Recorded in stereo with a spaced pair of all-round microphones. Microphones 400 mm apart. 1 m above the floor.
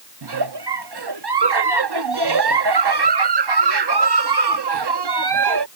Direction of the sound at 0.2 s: 75° right (ahead or behind).